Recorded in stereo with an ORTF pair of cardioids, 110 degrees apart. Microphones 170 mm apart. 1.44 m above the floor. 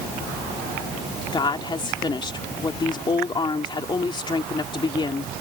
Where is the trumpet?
I don't hear a trumpet.